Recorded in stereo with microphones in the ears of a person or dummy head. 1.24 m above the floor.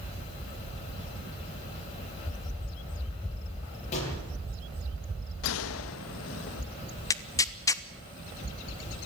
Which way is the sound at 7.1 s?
15° left (ahead or behind).